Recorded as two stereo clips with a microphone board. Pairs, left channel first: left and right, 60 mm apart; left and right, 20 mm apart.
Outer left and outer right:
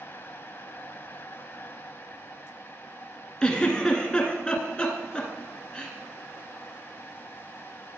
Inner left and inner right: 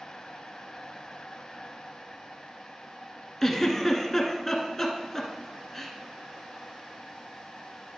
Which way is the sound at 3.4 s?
15° left (ahead or behind).